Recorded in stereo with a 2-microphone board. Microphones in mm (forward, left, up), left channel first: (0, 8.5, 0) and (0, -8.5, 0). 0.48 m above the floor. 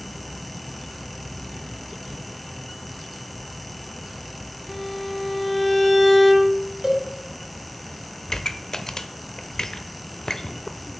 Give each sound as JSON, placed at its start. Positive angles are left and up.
{"t": 4.7, "sound": "a violin", "side_deg": 15, "distance_m": 1.0}
{"t": 6.8, "sound": "a cowbell", "side_deg": -35, "distance_m": 1.3}
{"t": 8.3, "sound": "a pop", "side_deg": 40, "distance_m": 0.5}